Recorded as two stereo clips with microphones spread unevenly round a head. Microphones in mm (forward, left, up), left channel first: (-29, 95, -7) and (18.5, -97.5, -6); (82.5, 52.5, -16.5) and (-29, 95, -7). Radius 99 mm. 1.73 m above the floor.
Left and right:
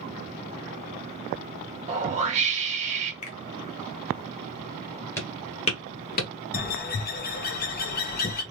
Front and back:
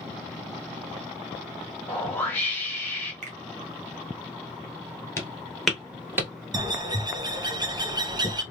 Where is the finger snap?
160° left, 1.2 m.